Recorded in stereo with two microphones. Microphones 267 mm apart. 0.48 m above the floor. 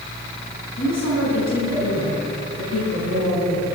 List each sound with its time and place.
0.8 s a woman speaking: 75° left (ahead or behind), 4.5 m